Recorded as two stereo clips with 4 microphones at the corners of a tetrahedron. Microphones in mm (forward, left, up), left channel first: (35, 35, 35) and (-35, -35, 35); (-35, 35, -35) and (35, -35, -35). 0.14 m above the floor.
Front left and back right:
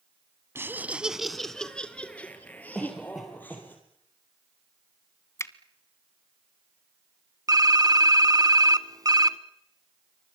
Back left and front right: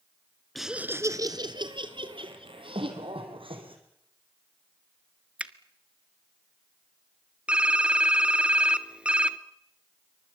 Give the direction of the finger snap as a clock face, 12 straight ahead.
11 o'clock.